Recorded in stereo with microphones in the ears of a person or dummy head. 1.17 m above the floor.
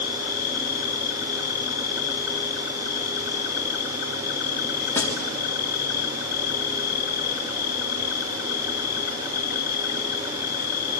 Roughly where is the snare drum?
Centre.